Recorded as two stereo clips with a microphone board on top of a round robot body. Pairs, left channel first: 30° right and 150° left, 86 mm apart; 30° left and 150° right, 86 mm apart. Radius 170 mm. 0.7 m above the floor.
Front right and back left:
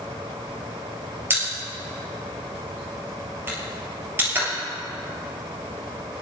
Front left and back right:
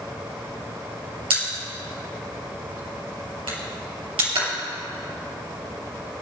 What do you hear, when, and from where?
1.3 s a pop: 150° right, 4.5 m